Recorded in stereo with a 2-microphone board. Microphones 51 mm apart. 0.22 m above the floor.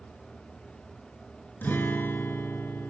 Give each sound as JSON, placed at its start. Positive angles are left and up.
{"t": 1.6, "sound": "a guitar", "side_deg": 40, "distance_m": 1.8}